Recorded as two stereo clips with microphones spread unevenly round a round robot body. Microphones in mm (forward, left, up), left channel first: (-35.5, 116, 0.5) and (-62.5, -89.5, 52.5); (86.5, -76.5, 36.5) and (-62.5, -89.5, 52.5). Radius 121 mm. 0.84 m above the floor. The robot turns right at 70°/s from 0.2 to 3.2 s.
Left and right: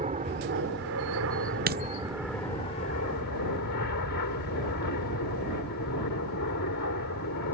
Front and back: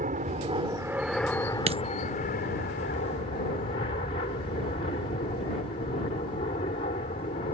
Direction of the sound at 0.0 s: 150° right.